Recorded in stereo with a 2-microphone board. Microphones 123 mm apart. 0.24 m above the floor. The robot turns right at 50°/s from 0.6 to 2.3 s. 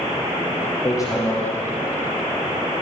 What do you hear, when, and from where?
0.8 s hammering: 35° left (ahead or behind), 7.5 m; by 1.4 s 10° left (ahead or behind), 7.5 m